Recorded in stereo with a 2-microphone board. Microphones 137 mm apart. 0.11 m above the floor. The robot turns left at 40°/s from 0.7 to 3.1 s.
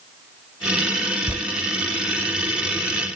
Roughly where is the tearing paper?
Centre.